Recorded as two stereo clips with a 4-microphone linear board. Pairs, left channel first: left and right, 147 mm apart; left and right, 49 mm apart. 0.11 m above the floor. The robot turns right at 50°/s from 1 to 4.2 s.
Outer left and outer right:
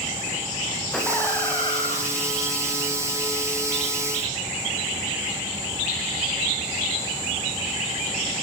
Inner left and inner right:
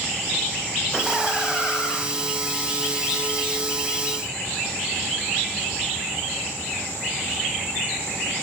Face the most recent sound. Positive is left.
turn(degrees=160)